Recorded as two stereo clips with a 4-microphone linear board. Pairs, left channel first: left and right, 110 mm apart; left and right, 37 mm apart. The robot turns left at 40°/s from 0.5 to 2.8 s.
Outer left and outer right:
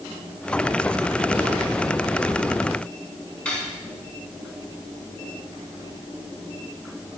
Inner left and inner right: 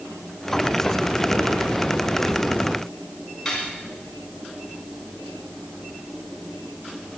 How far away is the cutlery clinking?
About 3 m.